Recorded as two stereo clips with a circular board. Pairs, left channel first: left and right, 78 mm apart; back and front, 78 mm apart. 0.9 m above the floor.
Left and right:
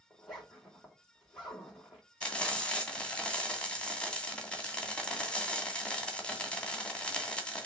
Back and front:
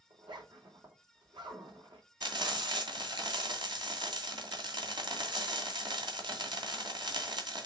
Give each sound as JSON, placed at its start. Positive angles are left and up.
{"t": 0.1, "sound": "a zipper", "azimuth_deg": 10, "distance_m": 4.0}
{"t": 2.2, "sound": "frying", "azimuth_deg": 15, "distance_m": 2.0}